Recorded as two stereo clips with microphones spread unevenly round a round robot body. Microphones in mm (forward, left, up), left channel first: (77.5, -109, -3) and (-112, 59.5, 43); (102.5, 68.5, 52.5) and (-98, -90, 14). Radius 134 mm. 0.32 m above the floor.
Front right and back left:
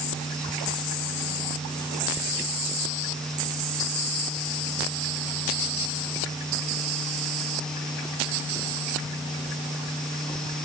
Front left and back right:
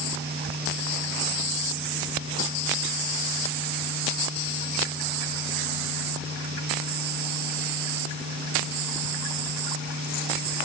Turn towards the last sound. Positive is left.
No sound to turn to.